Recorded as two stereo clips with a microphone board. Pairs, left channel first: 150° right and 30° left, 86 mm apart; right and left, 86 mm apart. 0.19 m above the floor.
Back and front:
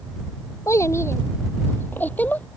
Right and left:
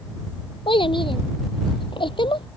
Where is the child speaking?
95° right; by 2.5 s 80° right.